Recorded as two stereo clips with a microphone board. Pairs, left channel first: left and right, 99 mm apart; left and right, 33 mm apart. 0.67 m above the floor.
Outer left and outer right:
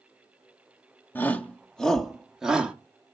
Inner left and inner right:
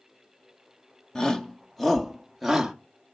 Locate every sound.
1.1 s a shout: 20° left (ahead or behind), 1.5 m; by 2.8 s 10° right (ahead or behind), 1.7 m